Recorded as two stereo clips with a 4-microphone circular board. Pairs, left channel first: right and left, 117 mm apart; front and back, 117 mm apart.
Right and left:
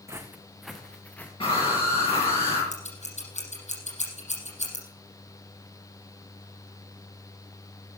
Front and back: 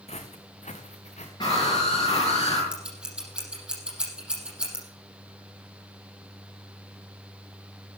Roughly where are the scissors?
Right.